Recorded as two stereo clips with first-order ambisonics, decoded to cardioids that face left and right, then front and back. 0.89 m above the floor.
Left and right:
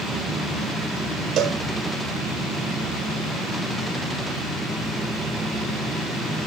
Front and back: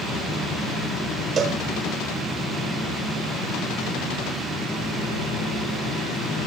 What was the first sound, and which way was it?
A cowbell, 125° right.